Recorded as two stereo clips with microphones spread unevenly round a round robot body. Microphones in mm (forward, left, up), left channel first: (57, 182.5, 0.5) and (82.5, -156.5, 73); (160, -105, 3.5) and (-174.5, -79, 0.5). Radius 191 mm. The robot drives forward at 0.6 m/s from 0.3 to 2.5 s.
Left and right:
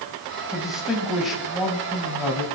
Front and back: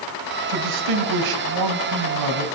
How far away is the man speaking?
About 3 m.